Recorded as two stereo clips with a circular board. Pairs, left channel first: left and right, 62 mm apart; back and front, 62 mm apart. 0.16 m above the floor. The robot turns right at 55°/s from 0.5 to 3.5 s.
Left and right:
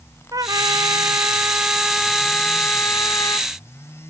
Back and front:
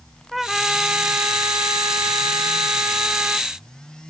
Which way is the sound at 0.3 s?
90° right.